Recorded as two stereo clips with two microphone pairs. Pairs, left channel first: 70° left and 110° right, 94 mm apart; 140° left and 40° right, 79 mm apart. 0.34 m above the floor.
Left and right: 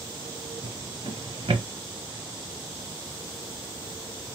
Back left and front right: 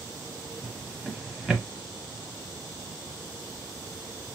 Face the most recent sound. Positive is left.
turn(degrees=-120)